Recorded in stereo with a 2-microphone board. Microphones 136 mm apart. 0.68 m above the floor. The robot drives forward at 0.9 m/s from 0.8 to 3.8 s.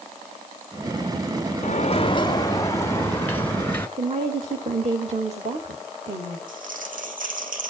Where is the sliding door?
60° left (ahead or behind), 0.5 m; by 3.9 s 10° left (ahead or behind), 2 m.